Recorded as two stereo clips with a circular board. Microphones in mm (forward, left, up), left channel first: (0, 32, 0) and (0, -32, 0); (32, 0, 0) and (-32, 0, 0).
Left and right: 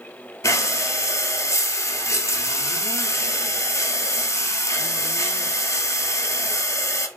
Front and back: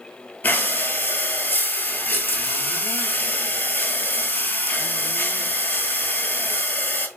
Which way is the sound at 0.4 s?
60° left.